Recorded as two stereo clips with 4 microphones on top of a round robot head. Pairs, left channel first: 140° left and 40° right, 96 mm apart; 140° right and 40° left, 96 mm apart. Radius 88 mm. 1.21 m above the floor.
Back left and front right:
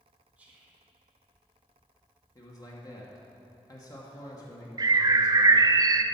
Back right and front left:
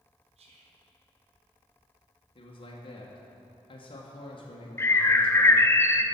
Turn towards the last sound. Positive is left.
turn(degrees=-80)